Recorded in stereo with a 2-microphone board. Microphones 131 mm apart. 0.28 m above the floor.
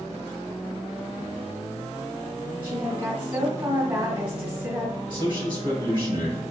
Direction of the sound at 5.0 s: 40° right (ahead or behind).